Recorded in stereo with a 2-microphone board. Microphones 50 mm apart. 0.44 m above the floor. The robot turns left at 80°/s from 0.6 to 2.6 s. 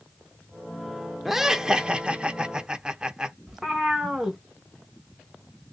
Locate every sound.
1.2 s laughter: 5° right (ahead or behind), 0.7 m; by 3.4 s 15° right (ahead or behind), 0.7 m
3.5 s a cat meowing: 10° right (ahead or behind), 1.2 m